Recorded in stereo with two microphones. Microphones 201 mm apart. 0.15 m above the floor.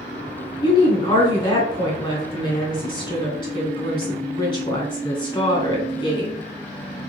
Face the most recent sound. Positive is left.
turn(degrees=25)  # may be behind; listen again after turning